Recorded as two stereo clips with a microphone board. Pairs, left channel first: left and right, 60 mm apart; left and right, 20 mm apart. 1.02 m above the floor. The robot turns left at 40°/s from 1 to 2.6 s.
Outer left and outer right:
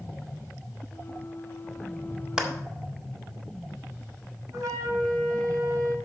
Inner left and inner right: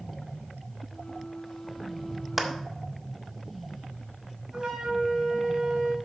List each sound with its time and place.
2.4 s a clap: 15° right (ahead or behind), 1.7 m; by 2.5 s 20° right (ahead or behind), 1.7 m
4.5 s a flute: 70° right (ahead or behind), 4 m